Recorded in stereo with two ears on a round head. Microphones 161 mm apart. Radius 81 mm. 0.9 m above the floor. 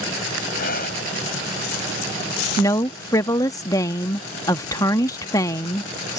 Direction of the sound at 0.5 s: 55° left (ahead or behind).